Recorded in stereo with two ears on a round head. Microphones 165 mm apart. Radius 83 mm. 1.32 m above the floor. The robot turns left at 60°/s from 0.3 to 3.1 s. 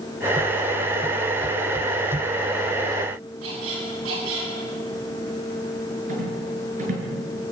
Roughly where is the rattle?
Right.